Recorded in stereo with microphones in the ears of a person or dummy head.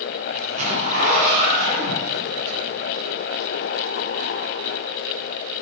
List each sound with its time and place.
0.3 s a zipper: 40° right (ahead or behind), 6.5 m